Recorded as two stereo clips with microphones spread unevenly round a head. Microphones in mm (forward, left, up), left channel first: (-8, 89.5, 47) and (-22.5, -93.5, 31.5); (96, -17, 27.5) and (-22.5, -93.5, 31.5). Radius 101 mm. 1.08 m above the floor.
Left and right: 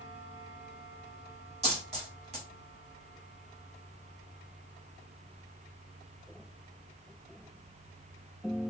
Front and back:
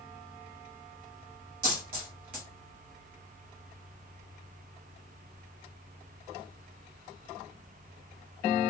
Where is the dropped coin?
150° right, 1.4 m.